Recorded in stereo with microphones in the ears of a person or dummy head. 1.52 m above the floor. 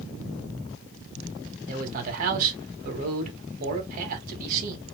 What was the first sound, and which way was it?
A man speaking, 55° right (ahead or behind).